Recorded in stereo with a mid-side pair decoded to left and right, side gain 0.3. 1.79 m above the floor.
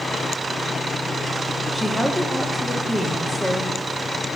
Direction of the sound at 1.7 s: 5° left.